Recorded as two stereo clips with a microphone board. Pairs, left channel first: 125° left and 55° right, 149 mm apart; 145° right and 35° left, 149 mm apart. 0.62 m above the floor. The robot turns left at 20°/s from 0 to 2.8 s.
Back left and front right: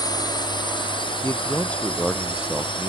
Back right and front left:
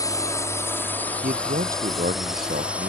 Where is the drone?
165° left; by 2.9 s 110° left.